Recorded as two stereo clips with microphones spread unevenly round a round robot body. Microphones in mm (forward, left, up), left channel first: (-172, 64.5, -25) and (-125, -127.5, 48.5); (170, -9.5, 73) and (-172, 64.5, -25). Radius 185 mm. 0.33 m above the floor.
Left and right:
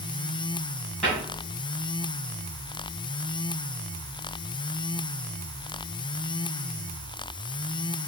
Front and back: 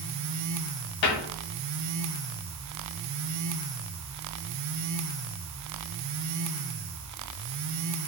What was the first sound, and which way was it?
A cupboard door, 20° left.